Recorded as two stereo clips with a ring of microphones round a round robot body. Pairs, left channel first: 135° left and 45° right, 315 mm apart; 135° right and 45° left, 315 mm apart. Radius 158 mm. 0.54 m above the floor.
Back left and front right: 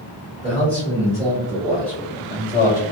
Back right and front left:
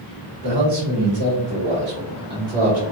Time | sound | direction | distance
0.4 | a man speaking | 25° left | 1.5 m